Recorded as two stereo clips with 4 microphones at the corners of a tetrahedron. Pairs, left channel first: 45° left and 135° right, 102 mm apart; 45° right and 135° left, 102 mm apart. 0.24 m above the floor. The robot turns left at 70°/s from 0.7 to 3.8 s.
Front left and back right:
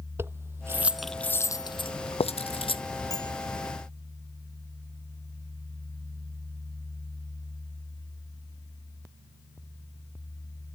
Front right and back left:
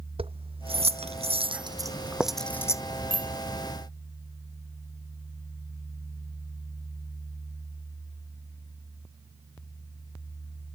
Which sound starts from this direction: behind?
Keys jangling, at 0.2 s.